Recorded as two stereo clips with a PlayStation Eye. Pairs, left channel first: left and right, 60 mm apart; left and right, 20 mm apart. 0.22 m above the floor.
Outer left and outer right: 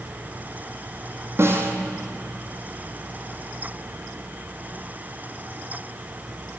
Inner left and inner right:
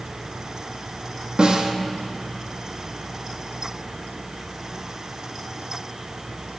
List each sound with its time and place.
1.4 s a snare drum: 45° right (ahead or behind), 1.3 m